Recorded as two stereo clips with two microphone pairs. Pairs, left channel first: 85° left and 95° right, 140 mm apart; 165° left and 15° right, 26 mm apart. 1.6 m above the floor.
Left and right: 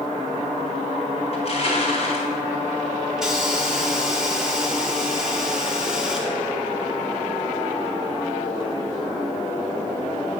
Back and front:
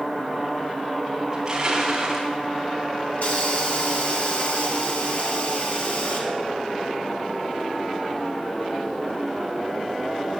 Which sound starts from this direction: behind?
A hiss, at 3.2 s.